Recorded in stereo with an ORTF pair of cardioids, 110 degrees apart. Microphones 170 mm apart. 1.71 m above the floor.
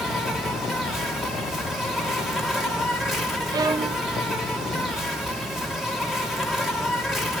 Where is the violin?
20° right, 0.6 m.